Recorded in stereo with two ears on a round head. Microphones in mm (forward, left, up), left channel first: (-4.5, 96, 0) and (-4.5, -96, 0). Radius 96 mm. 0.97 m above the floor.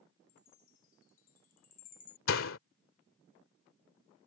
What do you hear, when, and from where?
0.3 s a chime: 40° left (ahead or behind)
2.3 s a door slam: 70° left (ahead or behind)